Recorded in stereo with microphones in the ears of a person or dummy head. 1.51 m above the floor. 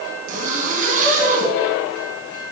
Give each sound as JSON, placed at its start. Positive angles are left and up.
{"t": 0.3, "sound": "a zipper", "side_deg": -45, "distance_m": 4.0}